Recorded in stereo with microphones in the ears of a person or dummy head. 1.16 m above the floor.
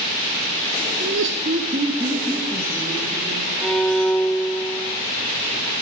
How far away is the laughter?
About 1.1 m.